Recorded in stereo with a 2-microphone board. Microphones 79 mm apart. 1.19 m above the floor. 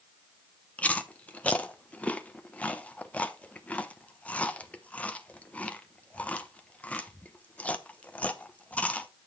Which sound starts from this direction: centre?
Chewing, at 0.8 s.